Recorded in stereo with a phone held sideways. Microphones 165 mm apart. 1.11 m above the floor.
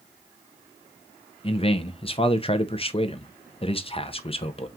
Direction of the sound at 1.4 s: 35° left (ahead or behind).